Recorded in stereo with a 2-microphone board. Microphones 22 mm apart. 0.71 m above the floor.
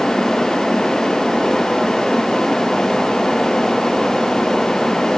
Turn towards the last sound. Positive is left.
No sound to turn to.